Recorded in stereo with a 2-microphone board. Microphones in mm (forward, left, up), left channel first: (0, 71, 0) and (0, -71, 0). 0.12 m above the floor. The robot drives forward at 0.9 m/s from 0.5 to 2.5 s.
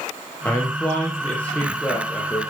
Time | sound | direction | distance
0.5 | a man speaking | 10° left (ahead or behind) | 3.5 m